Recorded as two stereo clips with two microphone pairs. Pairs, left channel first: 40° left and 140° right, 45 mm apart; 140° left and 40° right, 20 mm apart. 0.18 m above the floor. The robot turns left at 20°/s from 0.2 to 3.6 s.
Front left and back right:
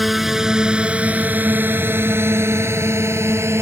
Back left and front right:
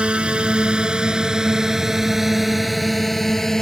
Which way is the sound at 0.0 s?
55° right.